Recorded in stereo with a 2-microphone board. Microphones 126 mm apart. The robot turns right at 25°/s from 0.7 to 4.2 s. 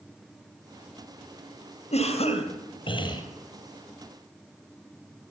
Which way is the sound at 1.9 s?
105° left.